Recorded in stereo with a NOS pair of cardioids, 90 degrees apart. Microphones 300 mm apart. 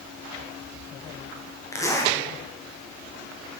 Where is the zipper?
10° left, 1.5 m.